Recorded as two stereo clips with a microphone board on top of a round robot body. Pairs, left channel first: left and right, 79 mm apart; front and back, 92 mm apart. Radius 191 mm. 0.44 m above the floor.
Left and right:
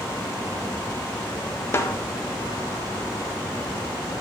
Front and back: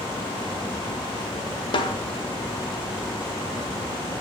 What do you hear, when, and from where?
1.7 s a snare drum: 30° left, 1.0 m